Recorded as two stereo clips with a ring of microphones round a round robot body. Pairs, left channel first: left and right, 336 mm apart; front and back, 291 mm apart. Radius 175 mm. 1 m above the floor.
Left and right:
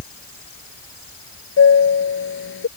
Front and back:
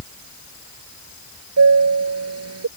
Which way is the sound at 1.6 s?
145° left.